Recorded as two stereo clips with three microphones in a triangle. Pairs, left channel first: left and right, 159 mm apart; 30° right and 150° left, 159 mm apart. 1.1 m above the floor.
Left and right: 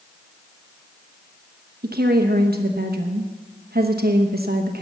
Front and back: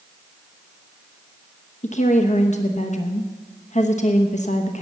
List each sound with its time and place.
1.8 s a woman speaking: 75° right, 1.0 m